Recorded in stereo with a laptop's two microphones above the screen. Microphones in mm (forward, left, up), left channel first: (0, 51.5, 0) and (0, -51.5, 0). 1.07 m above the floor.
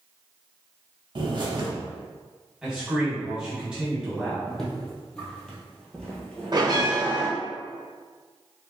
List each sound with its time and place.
1.1 s a bird: 45° right (ahead or behind), 0.8 m
2.6 s a man speaking: 10° right (ahead or behind), 1.4 m
4.5 s footsteps: 5° left (ahead or behind), 1.9 m; by 6.9 s 10° left (ahead or behind), 1.0 m
6.5 s a bell: 45° right (ahead or behind), 1.1 m